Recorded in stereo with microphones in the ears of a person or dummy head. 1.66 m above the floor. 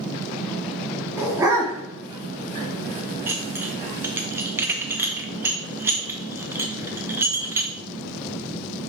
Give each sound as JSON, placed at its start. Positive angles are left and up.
{"t": 1.2, "sound": "a dog barking", "side_deg": -15, "distance_m": 1.7}
{"t": 3.3, "sound": "dishes clattering", "side_deg": -20, "distance_m": 1.1}